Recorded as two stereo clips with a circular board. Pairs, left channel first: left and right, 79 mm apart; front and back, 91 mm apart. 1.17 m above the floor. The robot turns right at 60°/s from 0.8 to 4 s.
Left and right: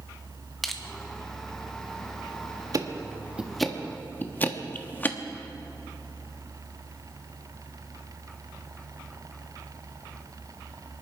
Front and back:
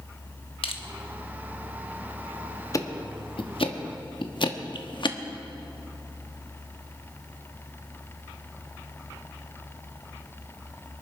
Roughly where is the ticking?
Ahead right.